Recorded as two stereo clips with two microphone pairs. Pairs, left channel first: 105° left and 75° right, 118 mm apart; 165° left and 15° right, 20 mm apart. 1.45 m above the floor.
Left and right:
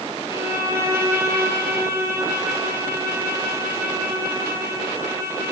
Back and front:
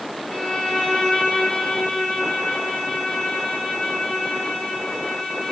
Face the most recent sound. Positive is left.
turn(degrees=-145)